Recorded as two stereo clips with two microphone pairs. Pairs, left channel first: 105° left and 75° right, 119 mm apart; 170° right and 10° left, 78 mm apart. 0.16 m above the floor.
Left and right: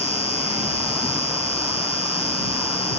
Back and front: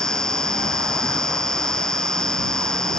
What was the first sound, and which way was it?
An insect, 110° left.